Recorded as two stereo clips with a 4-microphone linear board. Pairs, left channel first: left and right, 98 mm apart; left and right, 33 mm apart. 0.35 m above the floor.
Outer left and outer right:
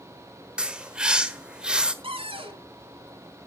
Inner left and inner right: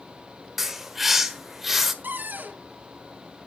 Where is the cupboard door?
65° right (ahead or behind), 2.5 m.